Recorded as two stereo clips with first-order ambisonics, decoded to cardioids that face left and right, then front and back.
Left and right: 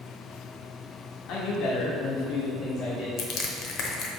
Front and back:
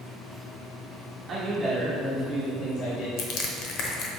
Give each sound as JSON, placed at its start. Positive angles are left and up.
{"t": 1.3, "sound": "a man speaking", "azimuth_deg": 120, "distance_m": 1.4}
{"t": 3.2, "sound": "crushing", "azimuth_deg": 45, "distance_m": 1.0}